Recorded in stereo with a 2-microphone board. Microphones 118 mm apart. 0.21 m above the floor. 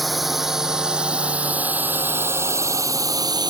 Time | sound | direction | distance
0.0 | a drone | centre (ahead or behind) | ?